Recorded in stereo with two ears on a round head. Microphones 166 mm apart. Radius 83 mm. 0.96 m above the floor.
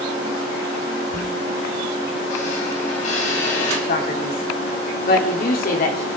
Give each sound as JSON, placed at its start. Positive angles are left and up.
{"t": 1.1, "sound": "a squeak", "side_deg": 40, "distance_m": 4.0}
{"t": 3.9, "sound": "a man speaking", "side_deg": 50, "distance_m": 3.0}